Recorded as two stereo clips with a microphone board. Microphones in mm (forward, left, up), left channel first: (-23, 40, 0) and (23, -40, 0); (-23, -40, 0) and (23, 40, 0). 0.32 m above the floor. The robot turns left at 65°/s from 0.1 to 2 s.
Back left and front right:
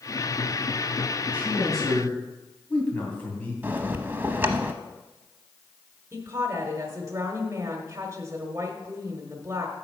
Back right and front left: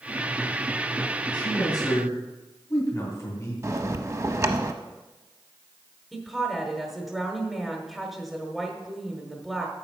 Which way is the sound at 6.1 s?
25° right.